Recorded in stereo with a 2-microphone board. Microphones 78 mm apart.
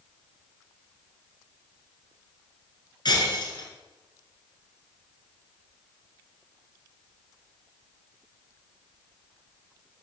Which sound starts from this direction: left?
Breaking glass, at 3.0 s.